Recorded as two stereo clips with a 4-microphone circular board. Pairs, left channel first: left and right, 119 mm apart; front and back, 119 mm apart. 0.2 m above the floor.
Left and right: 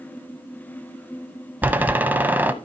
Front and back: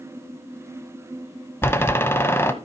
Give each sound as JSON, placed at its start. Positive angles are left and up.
{"t": 1.6, "sound": "a door slam", "azimuth_deg": -35, "distance_m": 0.7}